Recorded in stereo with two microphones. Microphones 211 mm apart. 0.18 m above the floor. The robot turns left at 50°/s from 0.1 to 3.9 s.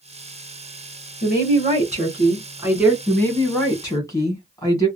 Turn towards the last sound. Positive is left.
turn(degrees=15)  # may be behind; listen again after turning